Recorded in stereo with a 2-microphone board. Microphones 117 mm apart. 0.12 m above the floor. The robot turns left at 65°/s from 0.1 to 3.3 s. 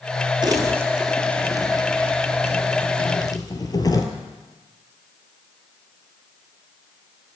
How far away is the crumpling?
About 1.0 m.